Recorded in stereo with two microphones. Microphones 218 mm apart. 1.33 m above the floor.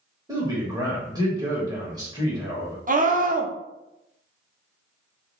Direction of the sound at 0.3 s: 15° right (ahead or behind).